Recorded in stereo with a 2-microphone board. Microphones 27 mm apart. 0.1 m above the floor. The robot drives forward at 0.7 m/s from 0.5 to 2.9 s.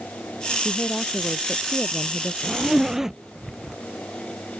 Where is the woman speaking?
30° left (ahead or behind); by 2.3 s 35° left (ahead or behind).